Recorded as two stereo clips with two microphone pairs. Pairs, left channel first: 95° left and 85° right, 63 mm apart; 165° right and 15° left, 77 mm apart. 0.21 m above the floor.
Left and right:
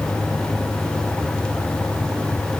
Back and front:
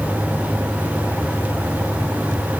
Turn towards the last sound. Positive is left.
No sound to turn to.